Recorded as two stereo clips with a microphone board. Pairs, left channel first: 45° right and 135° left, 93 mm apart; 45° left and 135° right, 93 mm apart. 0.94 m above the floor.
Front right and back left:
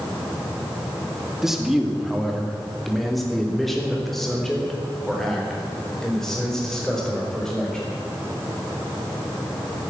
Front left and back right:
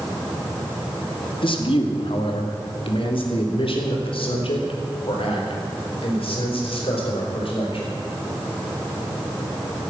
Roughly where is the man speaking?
Ahead left.